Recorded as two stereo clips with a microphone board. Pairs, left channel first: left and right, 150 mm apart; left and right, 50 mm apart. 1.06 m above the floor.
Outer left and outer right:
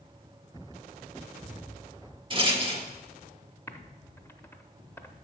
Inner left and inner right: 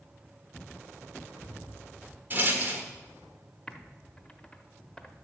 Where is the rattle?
35° right (ahead or behind), 1.4 m.